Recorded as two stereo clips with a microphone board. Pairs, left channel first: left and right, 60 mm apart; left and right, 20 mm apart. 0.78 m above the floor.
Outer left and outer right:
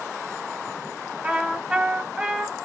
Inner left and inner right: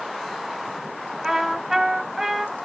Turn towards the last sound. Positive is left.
turn(degrees=-15)  # may be behind; listen again after turning